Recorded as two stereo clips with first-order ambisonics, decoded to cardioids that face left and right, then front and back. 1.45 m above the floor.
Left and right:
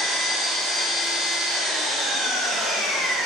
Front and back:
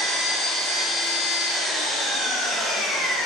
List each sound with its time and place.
0.0 s an engine running: 20° right, 1.0 m